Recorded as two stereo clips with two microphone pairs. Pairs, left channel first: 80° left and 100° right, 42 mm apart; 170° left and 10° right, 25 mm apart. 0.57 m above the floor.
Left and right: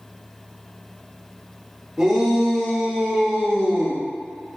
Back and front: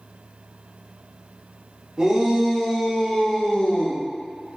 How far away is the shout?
About 0.9 m.